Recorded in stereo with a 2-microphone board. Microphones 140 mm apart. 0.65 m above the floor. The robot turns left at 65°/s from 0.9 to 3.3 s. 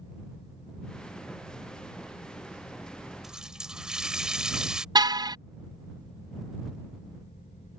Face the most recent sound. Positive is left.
turn(degrees=-30)  # may be behind; listen again after turning